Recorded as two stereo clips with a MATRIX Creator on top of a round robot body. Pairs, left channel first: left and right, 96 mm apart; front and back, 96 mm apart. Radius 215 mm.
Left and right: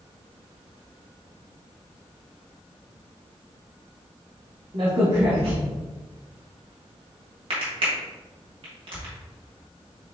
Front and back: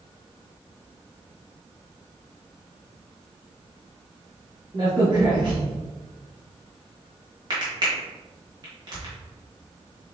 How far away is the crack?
About 1.3 m.